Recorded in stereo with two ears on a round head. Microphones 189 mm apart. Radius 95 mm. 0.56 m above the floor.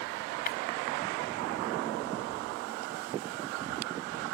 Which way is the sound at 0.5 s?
45° left (ahead or behind).